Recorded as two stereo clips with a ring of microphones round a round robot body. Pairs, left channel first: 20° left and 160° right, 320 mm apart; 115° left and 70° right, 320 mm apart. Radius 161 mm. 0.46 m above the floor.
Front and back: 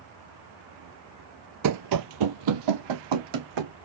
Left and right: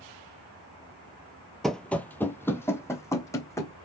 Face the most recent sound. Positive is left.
turn(degrees=-165)